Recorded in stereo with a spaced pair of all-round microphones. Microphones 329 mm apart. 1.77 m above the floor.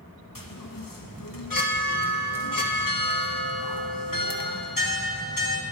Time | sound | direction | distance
0.3 | a chime | 80° left | 1.1 m